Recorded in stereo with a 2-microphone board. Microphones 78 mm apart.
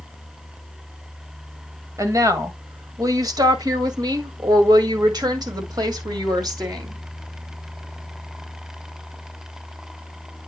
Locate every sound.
2.0 s a woman speaking: 40° right (ahead or behind), 2 m; by 7.0 s 55° right (ahead or behind), 2.5 m